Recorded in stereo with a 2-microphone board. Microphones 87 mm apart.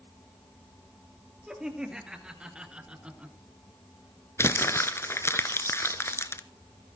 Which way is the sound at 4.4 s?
30° left (ahead or behind).